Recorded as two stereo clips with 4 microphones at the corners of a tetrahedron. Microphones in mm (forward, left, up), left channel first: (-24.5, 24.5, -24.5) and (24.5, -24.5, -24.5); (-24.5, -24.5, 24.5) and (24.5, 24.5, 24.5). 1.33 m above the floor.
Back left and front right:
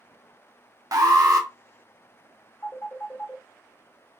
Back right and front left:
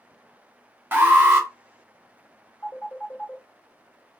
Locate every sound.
0.9 s an alarm: 15° right, 0.6 m
2.6 s a phone ringing: 170° left, 0.8 m